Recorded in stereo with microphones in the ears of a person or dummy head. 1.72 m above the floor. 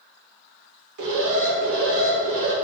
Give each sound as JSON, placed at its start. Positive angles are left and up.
{"t": 1.0, "sound": "an alarm", "side_deg": -75, "distance_m": 3.0}